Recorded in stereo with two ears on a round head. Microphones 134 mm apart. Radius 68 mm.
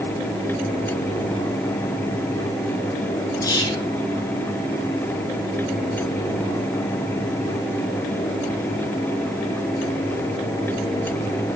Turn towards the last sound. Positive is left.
turn(degrees=20)  # may be behind; listen again after turning